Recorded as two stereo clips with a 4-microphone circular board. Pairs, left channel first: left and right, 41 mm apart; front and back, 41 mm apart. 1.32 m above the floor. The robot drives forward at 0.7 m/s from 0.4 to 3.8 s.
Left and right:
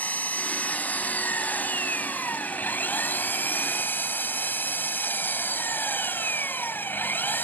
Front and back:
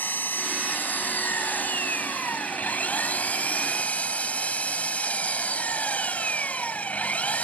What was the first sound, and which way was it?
An engine running, 40° left.